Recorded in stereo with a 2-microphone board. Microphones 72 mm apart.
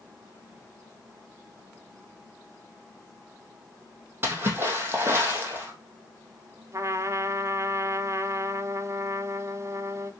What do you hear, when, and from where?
4.2 s a splash: 30° right (ahead or behind), 3 m
6.7 s a trumpet: 40° right (ahead or behind), 1.0 m